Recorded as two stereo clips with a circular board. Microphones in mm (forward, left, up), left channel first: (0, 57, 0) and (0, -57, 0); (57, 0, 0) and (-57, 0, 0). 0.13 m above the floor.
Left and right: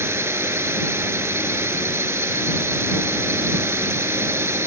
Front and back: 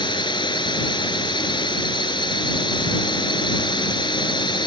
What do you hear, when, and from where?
0.0 s a drone: 30° right